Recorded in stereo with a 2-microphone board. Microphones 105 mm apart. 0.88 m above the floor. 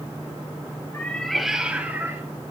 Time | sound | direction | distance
0.9 | a cat meowing | 20° left (ahead or behind) | 1.3 m